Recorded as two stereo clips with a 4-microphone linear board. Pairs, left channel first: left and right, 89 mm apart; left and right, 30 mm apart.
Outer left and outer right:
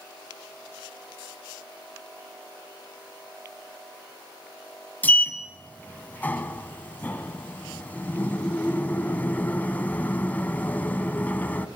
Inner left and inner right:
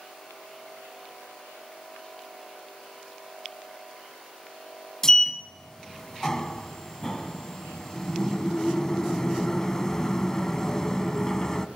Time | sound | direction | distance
5.0 | a sliding door | 20° left (ahead or behind) | 1.1 m